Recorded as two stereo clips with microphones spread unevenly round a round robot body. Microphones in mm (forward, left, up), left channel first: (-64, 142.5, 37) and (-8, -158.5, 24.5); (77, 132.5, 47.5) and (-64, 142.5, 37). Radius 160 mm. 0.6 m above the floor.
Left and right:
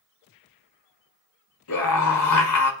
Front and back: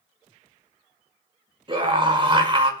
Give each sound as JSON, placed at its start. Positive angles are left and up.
{"t": 1.7, "sound": "a scream", "azimuth_deg": 125, "distance_m": 6.5}